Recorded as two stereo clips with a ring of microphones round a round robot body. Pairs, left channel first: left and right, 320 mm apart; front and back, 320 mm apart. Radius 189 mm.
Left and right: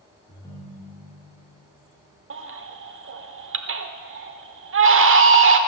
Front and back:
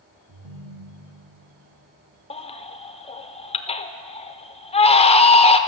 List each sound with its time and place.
0.3 s a ringtone: 170° left, 3.5 m
2.3 s a baby crying: 65° right, 1.1 m